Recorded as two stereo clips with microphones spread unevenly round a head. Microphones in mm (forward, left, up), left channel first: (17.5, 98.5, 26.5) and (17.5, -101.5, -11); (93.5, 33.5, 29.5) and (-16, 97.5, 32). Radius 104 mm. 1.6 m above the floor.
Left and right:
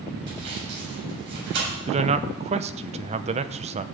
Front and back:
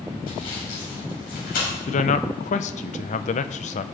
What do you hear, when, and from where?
0.3 s sawing: 55° right, 8 m
1.9 s a man speaking: 30° right, 0.7 m